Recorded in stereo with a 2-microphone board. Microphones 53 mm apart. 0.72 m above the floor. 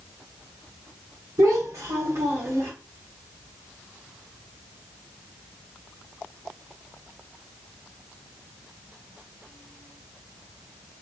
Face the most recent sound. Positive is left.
turn(degrees=-60)  # may be behind; listen again after turning